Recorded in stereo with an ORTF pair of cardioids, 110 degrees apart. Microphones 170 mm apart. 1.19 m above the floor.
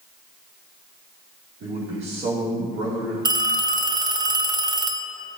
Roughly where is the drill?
No drill in this recording.